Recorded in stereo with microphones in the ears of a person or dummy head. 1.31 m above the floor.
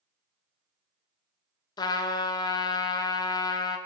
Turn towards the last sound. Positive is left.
turn(degrees=25)  # may be behind; listen again after turning